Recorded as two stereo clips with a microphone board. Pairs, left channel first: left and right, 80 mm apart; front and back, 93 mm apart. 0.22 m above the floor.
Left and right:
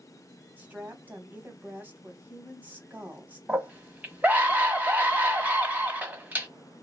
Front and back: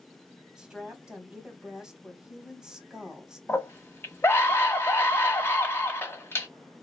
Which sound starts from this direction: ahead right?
A scream, at 3.5 s.